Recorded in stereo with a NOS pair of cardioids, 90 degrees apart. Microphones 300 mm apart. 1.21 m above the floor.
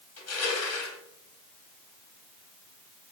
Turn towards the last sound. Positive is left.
turn(degrees=50)